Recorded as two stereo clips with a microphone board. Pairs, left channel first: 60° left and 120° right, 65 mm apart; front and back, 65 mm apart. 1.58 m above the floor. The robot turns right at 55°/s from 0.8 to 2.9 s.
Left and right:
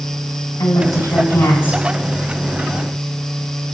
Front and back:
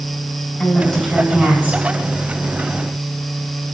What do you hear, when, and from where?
0.6 s a woman speaking: 70° left, 7 m; by 1.9 s 130° left, 7 m